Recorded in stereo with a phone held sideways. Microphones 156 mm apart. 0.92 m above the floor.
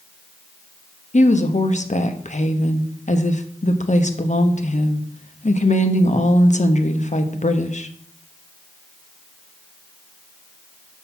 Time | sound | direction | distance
1.1 | a woman speaking | 50° left (ahead or behind) | 0.9 m